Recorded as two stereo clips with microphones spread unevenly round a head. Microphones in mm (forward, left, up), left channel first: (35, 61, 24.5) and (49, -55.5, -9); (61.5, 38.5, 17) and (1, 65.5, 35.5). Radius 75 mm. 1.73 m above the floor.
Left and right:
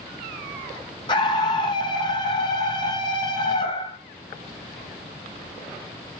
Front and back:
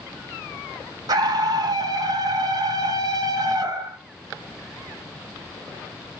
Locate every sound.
1.1 s a scream: 150° left, 1.9 m